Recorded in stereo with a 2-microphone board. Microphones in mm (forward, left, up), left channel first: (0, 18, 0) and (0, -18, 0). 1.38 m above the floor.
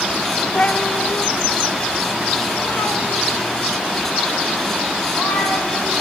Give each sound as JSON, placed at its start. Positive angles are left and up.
{"t": 0.6, "sound": "a cat meowing", "side_deg": 30, "distance_m": 0.6}